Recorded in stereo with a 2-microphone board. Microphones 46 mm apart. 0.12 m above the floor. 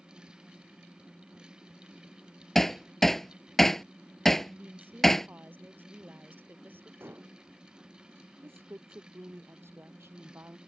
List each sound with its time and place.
2.5 s hammering: 5° left (ahead or behind)
4.4 s a woman speaking: 50° right (ahead or behind)
7.0 s dishes clattering: 55° right (ahead or behind)
8.4 s a woman speaking: 65° right (ahead or behind)